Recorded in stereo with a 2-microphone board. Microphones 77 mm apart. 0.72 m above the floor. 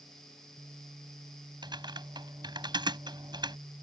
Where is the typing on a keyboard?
75° right (ahead or behind).